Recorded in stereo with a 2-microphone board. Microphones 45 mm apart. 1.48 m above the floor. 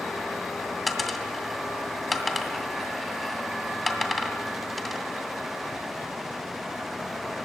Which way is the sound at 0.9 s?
Centre (ahead or behind).